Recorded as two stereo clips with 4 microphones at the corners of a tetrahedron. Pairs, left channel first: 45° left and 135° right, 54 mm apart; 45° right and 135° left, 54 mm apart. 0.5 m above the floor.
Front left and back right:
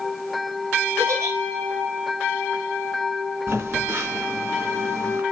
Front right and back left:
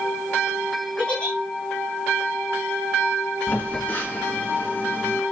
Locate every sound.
1.0 s a giggle: 110° right, 4.5 m
3.5 s a phone buzzing: 100° right, 3.5 m